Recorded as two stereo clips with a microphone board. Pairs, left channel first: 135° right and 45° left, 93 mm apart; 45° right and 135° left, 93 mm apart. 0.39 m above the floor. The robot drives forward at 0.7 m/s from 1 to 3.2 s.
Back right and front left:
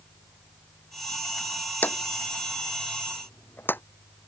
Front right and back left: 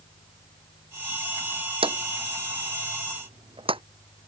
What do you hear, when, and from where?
1.8 s a drawer: 155° left